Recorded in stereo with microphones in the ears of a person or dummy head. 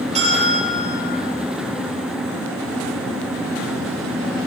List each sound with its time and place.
0.1 s a bell: 30° right (ahead or behind), 6 m